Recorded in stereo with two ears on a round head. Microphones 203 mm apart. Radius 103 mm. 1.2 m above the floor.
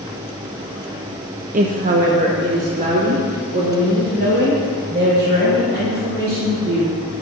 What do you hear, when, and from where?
1.5 s a woman speaking: 35° right (ahead or behind), 0.6 m